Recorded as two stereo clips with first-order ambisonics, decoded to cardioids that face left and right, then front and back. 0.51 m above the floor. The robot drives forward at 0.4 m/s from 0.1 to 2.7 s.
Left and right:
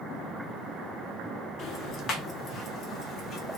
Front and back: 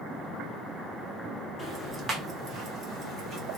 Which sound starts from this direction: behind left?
Ticking, at 1.6 s.